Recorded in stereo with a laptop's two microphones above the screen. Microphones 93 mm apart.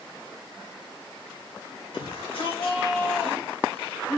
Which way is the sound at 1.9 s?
65° left (ahead or behind).